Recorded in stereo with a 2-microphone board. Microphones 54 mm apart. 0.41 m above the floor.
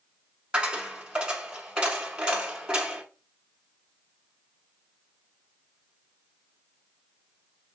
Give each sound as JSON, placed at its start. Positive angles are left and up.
{"t": 0.5, "sound": "a dropped coin", "side_deg": -15, "distance_m": 0.8}